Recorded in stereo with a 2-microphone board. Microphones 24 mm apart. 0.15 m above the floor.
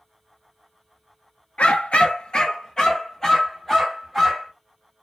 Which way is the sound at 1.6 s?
60° left (ahead or behind).